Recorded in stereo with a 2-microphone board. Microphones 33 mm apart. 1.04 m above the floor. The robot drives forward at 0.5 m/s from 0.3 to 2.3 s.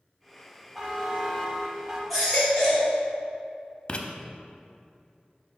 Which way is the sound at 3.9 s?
35° left (ahead or behind).